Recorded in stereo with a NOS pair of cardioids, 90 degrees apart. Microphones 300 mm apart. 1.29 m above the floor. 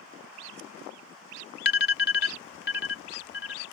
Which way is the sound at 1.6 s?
35° left.